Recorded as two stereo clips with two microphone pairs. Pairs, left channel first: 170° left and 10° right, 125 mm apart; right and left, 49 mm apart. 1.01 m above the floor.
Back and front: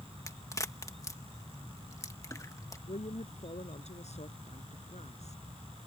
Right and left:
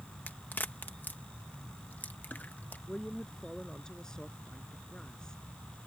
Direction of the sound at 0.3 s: 135° right.